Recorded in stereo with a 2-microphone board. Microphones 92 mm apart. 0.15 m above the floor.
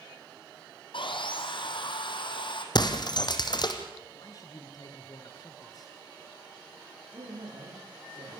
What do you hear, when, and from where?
0.9 s sawing: 65° left (ahead or behind), 2.5 m
2.8 s breaking glass: 55° left (ahead or behind), 1.9 m
4.2 s a man speaking: 40° left (ahead or behind), 2.5 m
7.1 s a man speaking: 65° right (ahead or behind), 8 m